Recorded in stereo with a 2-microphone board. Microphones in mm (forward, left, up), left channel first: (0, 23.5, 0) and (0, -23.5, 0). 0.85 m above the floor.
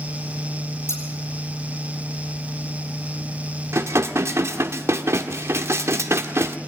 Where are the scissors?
80° left, 4.5 m.